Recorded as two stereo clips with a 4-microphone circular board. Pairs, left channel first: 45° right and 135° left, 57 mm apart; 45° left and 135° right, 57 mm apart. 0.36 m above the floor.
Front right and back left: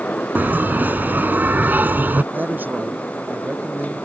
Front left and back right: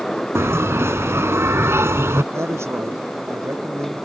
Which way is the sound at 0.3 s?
170° right.